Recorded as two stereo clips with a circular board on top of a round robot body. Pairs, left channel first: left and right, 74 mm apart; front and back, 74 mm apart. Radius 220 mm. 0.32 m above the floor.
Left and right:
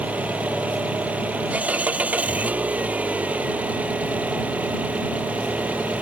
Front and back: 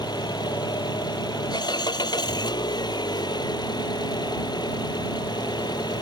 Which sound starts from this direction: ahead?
An engine running, at 0.0 s.